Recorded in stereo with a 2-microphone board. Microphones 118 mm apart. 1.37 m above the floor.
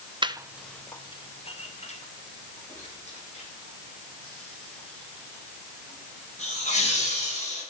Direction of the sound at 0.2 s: 45° right (ahead or behind).